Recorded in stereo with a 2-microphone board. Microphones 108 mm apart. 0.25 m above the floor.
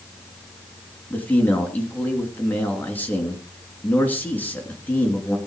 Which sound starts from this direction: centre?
A man speaking, at 1.1 s.